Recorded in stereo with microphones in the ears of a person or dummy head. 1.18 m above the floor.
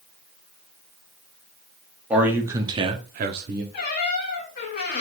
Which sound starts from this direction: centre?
A man speaking, at 2.1 s.